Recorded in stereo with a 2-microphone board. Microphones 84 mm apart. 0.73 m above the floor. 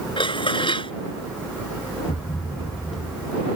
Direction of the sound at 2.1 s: 65° left (ahead or behind).